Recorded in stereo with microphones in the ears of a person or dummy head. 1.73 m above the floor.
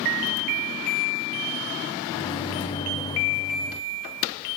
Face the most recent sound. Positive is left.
turn(degrees=25)  # may be behind; listen again after turning